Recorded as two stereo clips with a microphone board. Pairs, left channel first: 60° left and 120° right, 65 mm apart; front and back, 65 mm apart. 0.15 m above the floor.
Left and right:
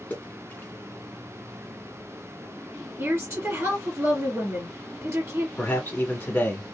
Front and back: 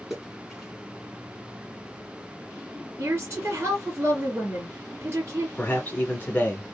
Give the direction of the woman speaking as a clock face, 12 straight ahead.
5 o'clock.